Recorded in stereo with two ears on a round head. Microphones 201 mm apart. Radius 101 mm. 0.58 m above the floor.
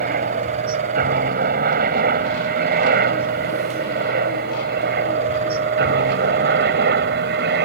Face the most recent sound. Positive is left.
turn(degrees=-45)  # may be behind; listen again after turning